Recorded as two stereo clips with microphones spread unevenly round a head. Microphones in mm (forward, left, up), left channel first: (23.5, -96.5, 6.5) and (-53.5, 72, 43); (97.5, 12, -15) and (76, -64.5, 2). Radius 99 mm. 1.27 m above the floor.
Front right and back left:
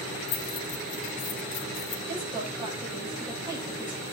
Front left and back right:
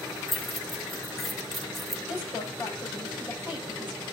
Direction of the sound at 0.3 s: 15° right.